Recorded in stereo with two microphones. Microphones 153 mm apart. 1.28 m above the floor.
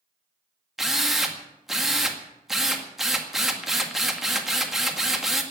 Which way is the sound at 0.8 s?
Centre (ahead or behind).